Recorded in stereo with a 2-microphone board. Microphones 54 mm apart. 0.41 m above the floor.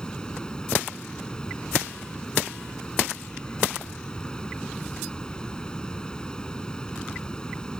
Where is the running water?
15° left (ahead or behind).